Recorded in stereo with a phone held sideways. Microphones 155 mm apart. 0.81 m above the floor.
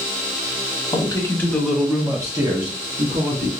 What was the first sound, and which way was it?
A man speaking, 30° left (ahead or behind).